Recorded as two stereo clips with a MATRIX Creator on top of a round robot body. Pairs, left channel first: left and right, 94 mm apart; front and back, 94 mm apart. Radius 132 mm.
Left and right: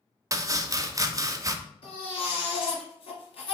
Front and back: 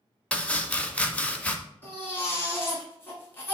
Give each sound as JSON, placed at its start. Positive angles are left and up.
{"t": 0.3, "sound": "chopping", "azimuth_deg": -70, "distance_m": 0.6}
{"t": 1.8, "sound": "a baby crying", "azimuth_deg": 65, "distance_m": 1.8}